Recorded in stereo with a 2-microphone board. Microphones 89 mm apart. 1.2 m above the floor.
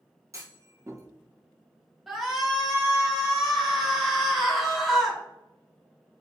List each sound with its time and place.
0.3 s a clunk: 35° right (ahead or behind), 1.2 m
2.1 s a shout: centre (ahead or behind), 2.5 m